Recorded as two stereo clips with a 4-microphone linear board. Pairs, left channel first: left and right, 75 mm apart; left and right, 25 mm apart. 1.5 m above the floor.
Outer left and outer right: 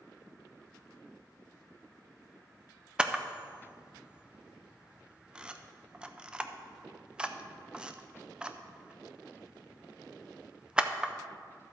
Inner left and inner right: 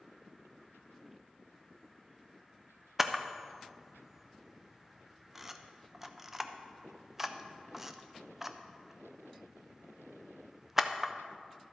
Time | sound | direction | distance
3.0 | a camera shutter | 10° right (ahead or behind) | 0.5 m